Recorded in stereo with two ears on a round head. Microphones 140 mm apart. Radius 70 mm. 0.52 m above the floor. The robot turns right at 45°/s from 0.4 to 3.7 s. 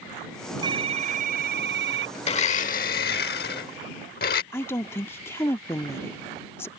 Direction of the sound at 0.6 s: 150° right.